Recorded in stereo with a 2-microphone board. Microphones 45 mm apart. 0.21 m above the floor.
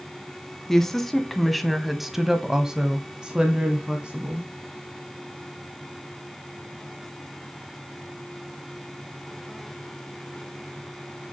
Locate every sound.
0.7 s a woman speaking: 10° left (ahead or behind), 1.4 m; by 4.5 s 20° right (ahead or behind), 1.6 m